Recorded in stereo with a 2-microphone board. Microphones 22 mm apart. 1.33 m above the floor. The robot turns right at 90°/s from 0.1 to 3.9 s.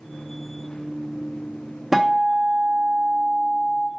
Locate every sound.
1.9 s a guitar: 170° right, 1.1 m; by 3.9 s 10° left, 1.1 m